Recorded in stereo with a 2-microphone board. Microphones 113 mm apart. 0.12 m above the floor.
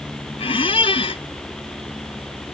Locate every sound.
0.4 s a squeak: 55° left (ahead or behind)